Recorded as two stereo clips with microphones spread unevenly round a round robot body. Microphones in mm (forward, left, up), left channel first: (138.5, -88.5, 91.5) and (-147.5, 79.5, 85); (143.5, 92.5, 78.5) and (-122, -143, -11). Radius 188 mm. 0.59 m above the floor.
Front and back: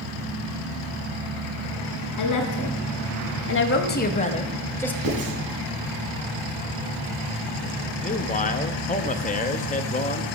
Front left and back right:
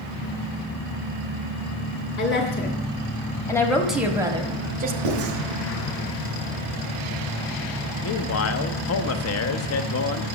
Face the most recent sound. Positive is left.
turn(degrees=10)